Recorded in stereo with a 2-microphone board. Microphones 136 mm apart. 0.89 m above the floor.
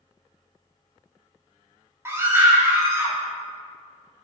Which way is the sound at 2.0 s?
20° right (ahead or behind).